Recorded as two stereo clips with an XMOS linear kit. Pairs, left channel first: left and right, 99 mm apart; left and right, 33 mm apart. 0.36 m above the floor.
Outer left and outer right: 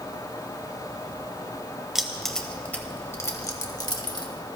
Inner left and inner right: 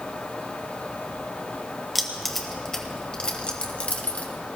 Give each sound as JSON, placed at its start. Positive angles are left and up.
{"t": 1.9, "sound": "keys jangling", "side_deg": -5, "distance_m": 1.1}